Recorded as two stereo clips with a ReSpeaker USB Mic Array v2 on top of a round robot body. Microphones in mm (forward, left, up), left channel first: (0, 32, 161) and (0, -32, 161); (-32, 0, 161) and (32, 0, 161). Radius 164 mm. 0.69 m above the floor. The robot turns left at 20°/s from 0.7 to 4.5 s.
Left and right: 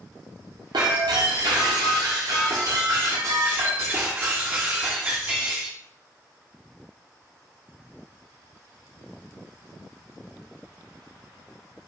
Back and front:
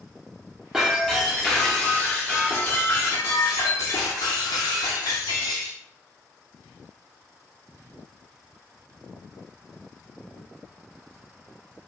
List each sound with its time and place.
0.7 s breaking glass: 80° right, 0.5 m; by 5.8 s 155° right, 0.5 m